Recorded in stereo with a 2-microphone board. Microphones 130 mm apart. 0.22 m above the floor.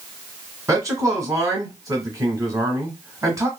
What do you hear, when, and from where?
0.7 s a man speaking: 25° right (ahead or behind), 1.2 m